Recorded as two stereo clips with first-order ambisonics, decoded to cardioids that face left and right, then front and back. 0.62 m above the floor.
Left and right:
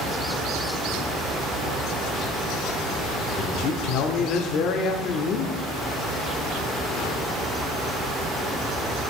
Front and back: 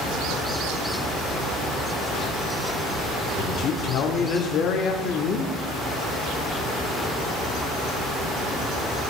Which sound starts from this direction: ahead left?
A man speaking, at 3.4 s.